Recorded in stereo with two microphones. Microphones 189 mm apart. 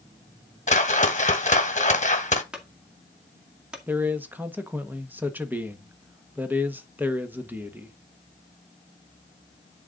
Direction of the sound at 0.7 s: 40° left (ahead or behind).